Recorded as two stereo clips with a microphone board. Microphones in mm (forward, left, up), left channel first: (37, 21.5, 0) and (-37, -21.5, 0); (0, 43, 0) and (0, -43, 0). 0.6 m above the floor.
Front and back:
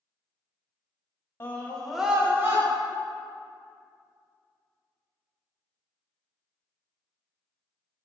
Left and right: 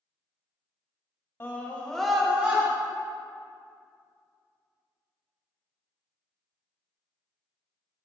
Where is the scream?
60° left, 1.1 m; by 2.6 s 145° right, 1.2 m.